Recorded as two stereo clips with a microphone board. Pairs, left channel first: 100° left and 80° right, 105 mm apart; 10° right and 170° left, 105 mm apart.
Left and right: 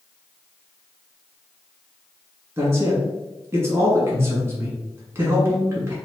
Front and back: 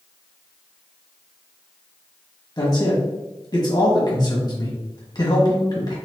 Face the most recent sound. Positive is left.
turn(degrees=-25)